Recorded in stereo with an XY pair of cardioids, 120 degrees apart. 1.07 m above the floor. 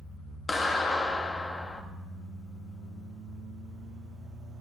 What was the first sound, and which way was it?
A clap, 25° left.